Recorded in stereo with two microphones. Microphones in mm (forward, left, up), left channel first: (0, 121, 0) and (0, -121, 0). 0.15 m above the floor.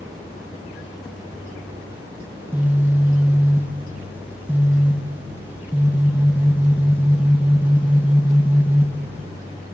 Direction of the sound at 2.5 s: 10° right (ahead or behind).